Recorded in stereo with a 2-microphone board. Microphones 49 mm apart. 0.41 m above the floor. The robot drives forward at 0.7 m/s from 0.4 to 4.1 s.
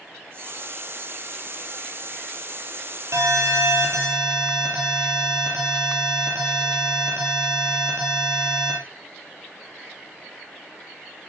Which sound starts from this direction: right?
An alarm, at 3.1 s.